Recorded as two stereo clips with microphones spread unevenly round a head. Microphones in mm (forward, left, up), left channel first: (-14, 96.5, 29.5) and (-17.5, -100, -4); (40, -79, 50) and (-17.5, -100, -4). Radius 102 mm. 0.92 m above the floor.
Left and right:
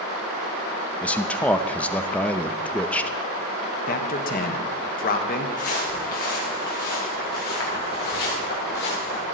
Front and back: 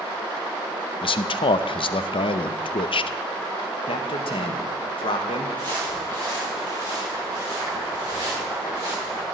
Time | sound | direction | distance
1.0 | a man speaking | 5° right | 0.5 m
3.9 | a man speaking | 50° left | 1.2 m
5.6 | footsteps | 130° left | 4.5 m